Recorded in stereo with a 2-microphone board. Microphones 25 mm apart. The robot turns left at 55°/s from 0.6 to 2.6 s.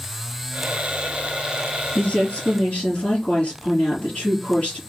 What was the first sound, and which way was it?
A woman speaking, 125° left.